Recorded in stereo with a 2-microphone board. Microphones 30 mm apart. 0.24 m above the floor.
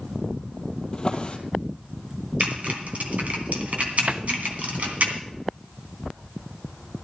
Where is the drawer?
30° left (ahead or behind), 2 m.